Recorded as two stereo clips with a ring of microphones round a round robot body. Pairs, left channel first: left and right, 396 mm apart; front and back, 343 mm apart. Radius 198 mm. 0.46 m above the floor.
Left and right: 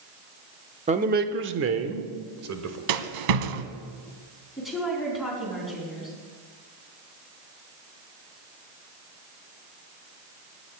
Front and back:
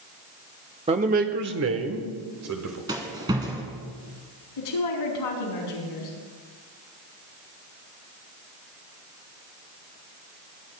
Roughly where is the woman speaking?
Ahead.